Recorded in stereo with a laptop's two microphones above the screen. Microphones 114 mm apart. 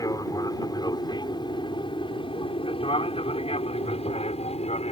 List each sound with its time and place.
0.0 s an aircraft: 30° left (ahead or behind); by 4.9 s 65° left (ahead or behind)